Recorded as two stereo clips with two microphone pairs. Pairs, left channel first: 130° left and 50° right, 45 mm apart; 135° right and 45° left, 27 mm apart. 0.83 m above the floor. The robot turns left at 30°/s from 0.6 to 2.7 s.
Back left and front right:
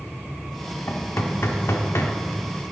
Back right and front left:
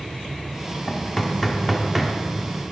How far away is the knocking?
About 1.1 m.